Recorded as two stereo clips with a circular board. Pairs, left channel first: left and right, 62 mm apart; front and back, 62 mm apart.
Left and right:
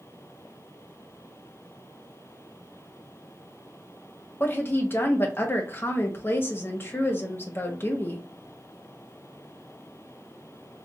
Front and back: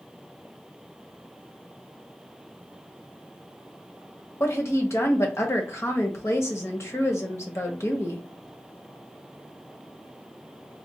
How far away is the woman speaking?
About 1.1 m.